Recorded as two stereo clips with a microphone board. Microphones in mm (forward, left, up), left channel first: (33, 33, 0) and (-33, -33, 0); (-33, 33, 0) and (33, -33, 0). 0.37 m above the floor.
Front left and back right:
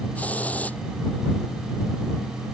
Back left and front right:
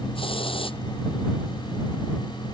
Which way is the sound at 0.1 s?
120° left.